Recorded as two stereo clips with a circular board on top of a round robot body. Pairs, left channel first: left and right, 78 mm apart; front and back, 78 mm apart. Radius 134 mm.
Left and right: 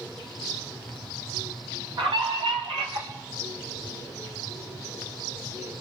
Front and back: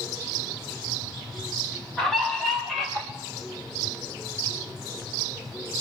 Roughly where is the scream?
Right.